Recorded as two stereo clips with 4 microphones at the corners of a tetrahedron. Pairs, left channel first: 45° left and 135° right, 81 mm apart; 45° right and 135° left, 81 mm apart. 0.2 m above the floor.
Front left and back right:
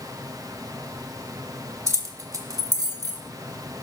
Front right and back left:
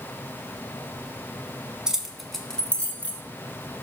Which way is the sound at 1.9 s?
150° right.